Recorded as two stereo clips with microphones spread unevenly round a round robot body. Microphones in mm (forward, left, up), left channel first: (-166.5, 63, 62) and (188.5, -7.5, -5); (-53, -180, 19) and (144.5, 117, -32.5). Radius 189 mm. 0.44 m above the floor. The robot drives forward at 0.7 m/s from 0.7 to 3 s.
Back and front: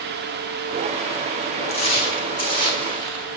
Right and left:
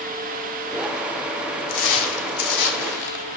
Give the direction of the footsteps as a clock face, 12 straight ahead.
4 o'clock.